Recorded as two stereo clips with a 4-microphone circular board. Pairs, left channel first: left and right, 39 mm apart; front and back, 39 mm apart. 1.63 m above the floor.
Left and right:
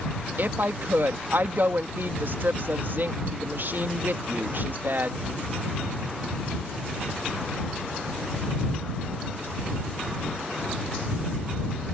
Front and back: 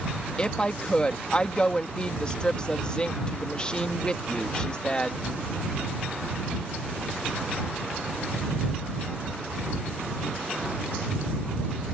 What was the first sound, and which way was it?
A woman speaking, 65° right.